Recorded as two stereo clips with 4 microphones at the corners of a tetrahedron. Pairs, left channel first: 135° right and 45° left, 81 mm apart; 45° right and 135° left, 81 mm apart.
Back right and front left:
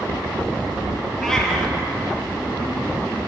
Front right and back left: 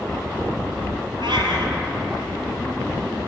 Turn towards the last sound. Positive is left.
turn(degrees=140)